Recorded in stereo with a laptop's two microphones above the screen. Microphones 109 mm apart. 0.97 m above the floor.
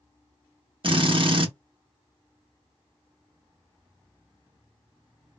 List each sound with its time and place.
0.8 s a drill: 50° right (ahead or behind), 0.9 m